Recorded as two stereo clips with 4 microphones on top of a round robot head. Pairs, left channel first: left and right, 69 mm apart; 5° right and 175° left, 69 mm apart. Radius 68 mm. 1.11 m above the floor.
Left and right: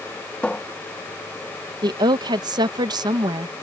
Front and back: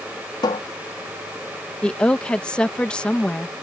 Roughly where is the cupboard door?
Ahead.